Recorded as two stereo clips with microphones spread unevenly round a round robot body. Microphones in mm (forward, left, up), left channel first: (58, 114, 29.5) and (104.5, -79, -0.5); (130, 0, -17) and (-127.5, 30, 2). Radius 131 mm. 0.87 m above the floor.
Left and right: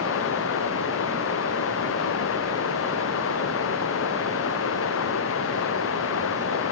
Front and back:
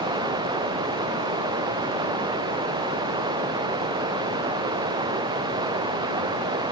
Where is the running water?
100° left.